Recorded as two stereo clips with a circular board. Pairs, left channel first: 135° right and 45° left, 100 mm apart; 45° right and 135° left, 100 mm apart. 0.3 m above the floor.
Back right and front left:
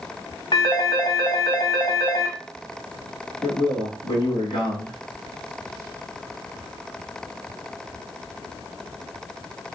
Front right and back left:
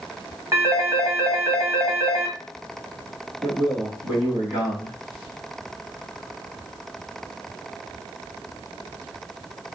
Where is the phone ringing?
170° right, 0.9 m.